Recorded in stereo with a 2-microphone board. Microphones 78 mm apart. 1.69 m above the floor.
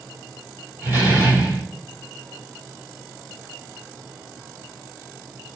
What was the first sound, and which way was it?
A door slam, 25° right (ahead or behind).